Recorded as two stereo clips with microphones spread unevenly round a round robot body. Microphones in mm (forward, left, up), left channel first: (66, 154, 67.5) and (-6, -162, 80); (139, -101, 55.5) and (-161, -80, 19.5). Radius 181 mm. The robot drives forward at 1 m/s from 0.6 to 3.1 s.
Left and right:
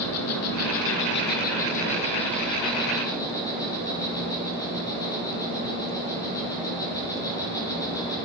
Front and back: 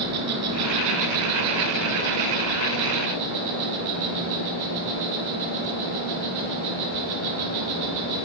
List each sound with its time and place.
0.0 s an insect: 125° left, 1.8 m; by 8.2 s 160° left, 4 m